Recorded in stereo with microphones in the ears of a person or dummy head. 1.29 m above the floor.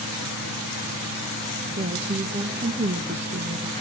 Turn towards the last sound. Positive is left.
turn(degrees=-30)  # may be behind; listen again after turning